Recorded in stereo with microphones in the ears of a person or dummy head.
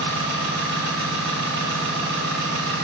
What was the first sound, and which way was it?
An engine running, 60° right (ahead or behind).